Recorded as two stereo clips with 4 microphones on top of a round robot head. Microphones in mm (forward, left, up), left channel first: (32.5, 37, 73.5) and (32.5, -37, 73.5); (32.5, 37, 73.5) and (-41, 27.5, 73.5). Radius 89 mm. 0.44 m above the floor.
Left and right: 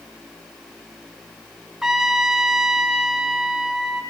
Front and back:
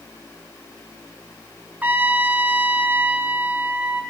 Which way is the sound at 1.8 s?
165° right.